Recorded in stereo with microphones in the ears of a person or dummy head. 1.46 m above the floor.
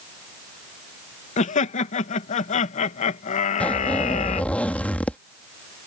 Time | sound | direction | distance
1.4 | laughter | 35° left (ahead or behind) | ?
3.6 | a zipper | 5° left (ahead or behind) | ?